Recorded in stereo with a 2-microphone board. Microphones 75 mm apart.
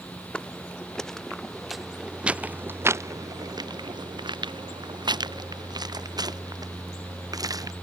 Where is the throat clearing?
I don't hear throat clearing.